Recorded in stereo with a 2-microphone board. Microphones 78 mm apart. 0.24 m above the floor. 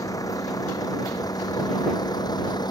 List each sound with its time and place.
0.0 s a vehicle: 50° left (ahead or behind); by 2.7 s 65° left (ahead or behind)